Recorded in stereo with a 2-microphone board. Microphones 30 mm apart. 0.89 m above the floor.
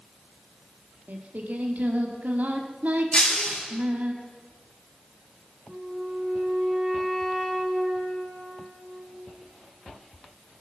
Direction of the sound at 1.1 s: 65° right (ahead or behind).